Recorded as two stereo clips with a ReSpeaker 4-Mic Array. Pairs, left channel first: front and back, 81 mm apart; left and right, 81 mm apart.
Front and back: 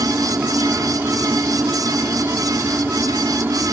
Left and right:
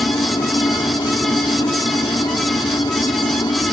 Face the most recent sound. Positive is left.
turn(degrees=115)